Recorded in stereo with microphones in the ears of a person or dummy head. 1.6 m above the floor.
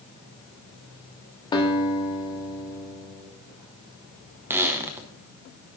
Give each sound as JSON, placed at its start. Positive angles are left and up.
{"t": 1.5, "sound": "a guitar", "side_deg": 20, "distance_m": 1.4}
{"t": 4.5, "sound": "a squeak", "side_deg": -10, "distance_m": 0.8}